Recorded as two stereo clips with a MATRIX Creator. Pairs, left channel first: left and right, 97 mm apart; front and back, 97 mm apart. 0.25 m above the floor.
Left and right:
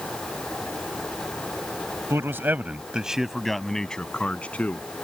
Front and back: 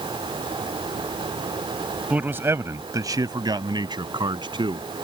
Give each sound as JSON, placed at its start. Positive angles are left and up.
{"t": 2.1, "sound": "a man speaking", "azimuth_deg": -120}